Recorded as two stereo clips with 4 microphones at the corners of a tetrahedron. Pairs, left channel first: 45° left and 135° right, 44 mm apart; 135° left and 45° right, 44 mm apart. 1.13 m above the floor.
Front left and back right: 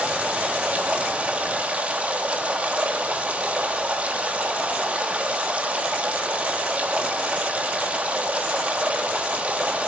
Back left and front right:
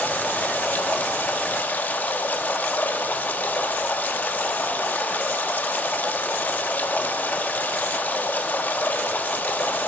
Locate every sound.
0.0 s running water: 175° left, 0.8 m